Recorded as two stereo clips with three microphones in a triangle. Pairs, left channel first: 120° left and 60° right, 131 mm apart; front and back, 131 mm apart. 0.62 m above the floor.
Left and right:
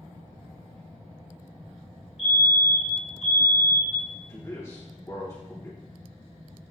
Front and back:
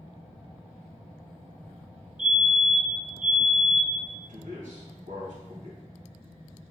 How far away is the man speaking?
About 3.5 m.